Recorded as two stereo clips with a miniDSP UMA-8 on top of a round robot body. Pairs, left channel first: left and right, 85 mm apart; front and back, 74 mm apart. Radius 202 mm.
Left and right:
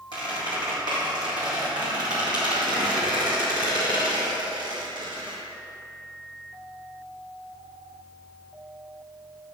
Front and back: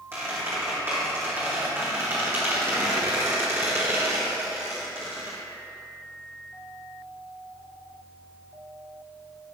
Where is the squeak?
120° right, 1.6 m.